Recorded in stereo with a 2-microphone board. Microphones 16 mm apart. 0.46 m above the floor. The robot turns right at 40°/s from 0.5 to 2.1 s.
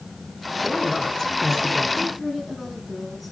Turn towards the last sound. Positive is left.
turn(degrees=5)  # may be behind; listen again after turning